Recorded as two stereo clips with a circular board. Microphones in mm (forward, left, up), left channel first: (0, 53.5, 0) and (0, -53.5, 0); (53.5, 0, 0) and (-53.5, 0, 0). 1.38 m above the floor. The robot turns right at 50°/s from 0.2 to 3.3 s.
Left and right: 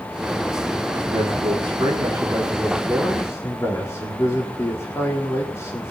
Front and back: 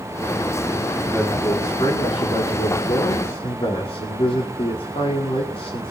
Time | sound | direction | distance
1.1 | a man speaking | 85° right | 4 m